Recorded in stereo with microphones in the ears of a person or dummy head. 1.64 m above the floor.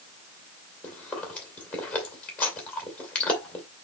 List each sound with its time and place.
0.8 s chewing: 10° left (ahead or behind), 2.5 m